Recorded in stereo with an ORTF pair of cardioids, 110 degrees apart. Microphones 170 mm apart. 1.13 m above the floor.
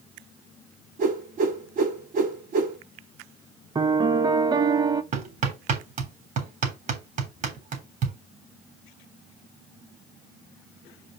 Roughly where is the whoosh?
Ahead right.